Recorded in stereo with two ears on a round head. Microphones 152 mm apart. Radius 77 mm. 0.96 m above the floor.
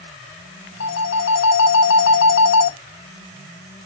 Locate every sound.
0.8 s a phone ringing: 80° left, 0.8 m